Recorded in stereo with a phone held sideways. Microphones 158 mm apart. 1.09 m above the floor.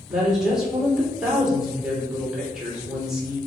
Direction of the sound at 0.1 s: 5° right (ahead or behind).